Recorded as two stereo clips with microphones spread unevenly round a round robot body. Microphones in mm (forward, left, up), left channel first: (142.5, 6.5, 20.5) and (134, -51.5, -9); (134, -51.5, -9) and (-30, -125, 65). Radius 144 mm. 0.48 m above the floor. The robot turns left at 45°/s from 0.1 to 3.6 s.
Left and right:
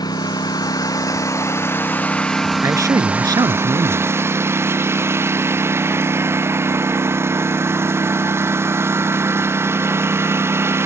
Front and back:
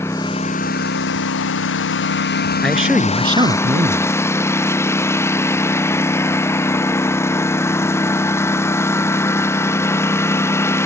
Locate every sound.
0.0 s a lawn mower: 105° left; by 10.9 s 50° right
2.6 s a man speaking: 60° right; by 4.1 s 105° right